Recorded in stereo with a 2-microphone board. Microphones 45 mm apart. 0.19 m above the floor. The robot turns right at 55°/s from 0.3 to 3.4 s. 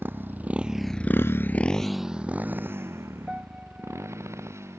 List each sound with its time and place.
0.0 s a motorcycle: 55° right (ahead or behind); by 4.8 s 80° right
3.3 s a piano: 15° right (ahead or behind); by 4.2 s 25° right (ahead or behind)